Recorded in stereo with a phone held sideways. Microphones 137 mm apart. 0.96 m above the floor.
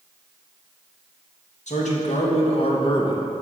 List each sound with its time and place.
1.7 s a man speaking: 60° left (ahead or behind), 1.5 m; by 3.3 s 30° left (ahead or behind), 0.9 m